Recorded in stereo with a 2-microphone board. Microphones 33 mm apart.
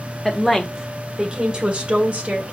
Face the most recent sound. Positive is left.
turn(degrees=-45)  # may be behind; listen again after turning